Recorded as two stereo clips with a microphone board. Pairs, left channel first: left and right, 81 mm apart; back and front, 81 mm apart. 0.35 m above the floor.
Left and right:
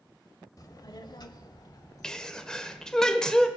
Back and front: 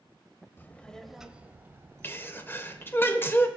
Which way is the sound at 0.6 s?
120° left.